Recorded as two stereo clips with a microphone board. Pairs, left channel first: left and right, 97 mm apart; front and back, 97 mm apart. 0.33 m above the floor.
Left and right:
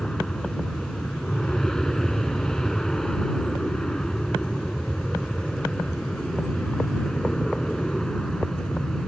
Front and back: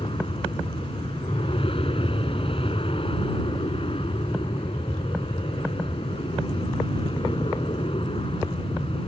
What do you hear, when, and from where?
0.0 s an aircraft: 5° left